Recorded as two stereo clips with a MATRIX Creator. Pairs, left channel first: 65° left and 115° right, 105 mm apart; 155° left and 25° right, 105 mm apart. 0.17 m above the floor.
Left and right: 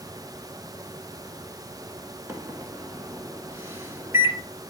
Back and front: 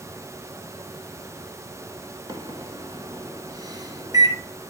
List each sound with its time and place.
2.3 s a microwave: 55° right, 1.3 m